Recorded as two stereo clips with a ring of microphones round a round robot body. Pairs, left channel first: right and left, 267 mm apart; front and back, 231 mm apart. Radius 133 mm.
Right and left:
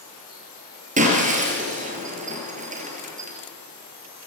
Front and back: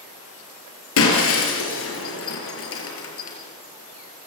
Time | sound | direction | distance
1.0 | breaking glass | 25° left | 5 m